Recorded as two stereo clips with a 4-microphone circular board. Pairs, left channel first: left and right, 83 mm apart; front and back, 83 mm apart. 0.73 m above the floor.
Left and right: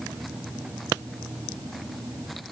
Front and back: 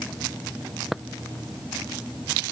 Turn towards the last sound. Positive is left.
No sound to turn to.